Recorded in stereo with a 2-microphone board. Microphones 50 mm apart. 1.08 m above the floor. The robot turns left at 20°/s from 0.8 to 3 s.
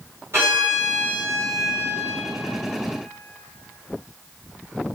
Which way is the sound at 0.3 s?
65° right (ahead or behind).